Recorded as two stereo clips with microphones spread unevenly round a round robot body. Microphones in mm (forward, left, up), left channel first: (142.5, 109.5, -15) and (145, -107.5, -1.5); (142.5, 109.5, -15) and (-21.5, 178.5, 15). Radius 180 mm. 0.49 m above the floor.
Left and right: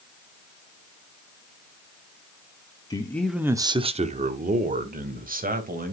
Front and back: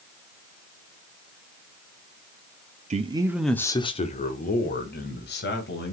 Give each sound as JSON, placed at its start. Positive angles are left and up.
{"t": 2.9, "sound": "a man speaking", "azimuth_deg": 135, "distance_m": 0.8}